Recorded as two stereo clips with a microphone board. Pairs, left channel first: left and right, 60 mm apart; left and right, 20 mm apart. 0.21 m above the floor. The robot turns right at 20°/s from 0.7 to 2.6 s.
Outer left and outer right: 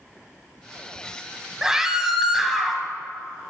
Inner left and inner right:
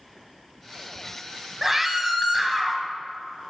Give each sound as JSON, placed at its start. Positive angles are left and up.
{"t": 1.6, "sound": "a scream", "side_deg": -10, "distance_m": 1.1}